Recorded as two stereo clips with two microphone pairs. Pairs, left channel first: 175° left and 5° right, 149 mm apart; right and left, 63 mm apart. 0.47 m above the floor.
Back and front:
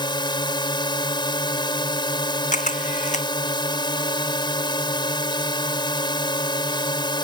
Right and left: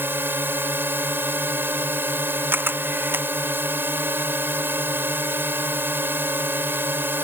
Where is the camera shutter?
145° left.